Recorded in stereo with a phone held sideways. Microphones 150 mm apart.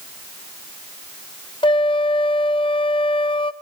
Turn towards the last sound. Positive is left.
turn(degrees=35)  # may be behind; listen again after turning